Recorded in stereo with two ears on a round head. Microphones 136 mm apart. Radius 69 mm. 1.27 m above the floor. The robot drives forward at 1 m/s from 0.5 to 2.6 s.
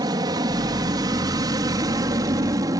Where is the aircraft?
25° right (ahead or behind).